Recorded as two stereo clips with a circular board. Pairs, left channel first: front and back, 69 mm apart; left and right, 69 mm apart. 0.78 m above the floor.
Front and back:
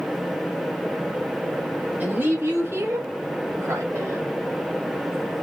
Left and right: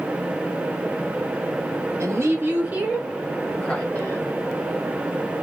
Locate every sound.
2.0 s a woman speaking: 125° right, 1.0 m; by 4.3 s 135° left, 0.9 m